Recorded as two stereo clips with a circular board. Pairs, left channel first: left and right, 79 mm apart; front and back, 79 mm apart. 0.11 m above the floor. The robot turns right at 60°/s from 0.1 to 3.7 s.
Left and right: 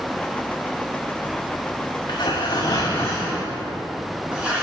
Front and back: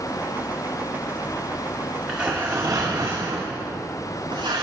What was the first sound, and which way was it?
Tearing paper, 90° left.